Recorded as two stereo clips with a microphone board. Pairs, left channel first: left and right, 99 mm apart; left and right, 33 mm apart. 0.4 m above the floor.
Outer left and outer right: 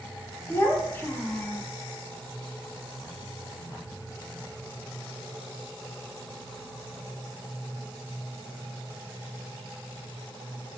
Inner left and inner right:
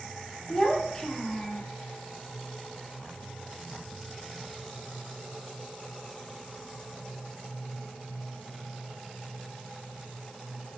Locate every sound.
0.5 s a child speaking: 20° left (ahead or behind), 0.5 m